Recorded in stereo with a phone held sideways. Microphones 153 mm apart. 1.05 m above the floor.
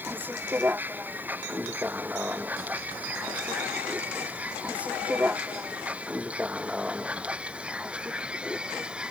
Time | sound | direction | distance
0.0 | a vehicle | 10° right (ahead or behind) | ?